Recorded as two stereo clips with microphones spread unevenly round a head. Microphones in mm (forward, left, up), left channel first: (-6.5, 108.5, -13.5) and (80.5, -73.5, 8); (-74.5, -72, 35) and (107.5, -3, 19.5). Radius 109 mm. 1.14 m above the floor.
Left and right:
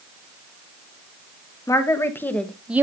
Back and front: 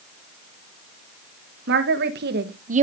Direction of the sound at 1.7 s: 45° left.